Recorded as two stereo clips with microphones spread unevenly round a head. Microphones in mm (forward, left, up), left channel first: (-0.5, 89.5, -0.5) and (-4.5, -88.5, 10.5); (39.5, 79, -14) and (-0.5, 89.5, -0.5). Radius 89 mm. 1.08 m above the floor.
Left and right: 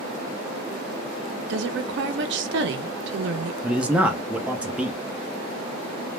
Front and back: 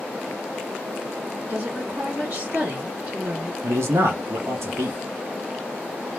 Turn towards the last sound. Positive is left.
turn(degrees=-175)